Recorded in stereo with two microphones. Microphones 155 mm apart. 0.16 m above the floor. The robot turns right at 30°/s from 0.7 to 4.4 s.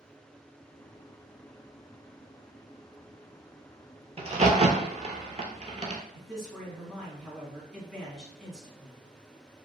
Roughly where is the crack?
Right.